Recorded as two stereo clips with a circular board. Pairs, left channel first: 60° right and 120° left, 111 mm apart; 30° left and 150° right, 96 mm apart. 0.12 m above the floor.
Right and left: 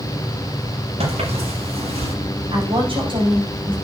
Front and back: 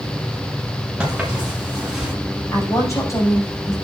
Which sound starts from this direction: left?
A woman speaking, at 2.5 s.